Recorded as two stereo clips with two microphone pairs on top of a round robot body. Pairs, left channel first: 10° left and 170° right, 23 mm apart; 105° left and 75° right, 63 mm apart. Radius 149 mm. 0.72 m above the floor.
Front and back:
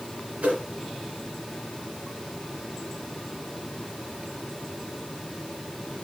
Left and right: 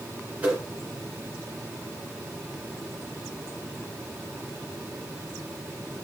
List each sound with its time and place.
0.4 s a whoosh: 145° right, 2 m